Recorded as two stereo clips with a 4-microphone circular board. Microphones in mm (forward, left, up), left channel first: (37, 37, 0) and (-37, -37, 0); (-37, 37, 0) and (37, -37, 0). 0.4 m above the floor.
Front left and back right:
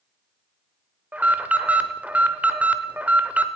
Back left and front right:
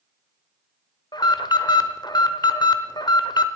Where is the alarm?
155° left, 0.7 m.